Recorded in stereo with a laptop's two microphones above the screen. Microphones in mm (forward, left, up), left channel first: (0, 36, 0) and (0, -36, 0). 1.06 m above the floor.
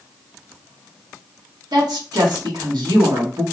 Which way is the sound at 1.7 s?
85° right.